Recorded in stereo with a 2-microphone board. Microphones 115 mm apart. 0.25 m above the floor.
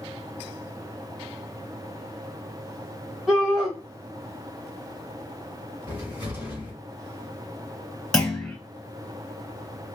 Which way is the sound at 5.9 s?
20° right (ahead or behind).